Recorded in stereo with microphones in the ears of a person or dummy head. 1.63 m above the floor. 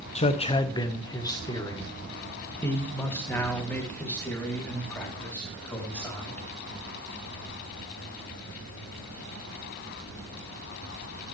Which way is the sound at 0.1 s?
30° left (ahead or behind).